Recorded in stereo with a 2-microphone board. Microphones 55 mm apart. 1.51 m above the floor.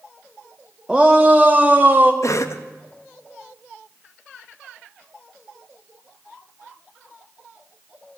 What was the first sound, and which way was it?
A shout, 10° right (ahead or behind).